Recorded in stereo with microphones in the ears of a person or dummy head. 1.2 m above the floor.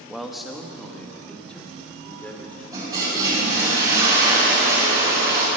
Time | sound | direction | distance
0.1 | a man speaking | 5° left (ahead or behind) | 1.5 m
2.7 | a toilet flushing | 25° right (ahead or behind) | 8.5 m